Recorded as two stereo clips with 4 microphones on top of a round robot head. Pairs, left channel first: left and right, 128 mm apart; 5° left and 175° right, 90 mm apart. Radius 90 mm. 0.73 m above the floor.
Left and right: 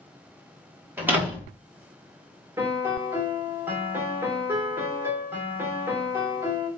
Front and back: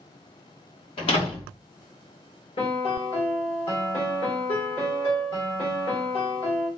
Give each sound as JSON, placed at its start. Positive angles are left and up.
{"t": 1.0, "sound": "a door slam", "azimuth_deg": -15, "distance_m": 1.4}
{"t": 2.6, "sound": "a piano", "azimuth_deg": -15, "distance_m": 1.5}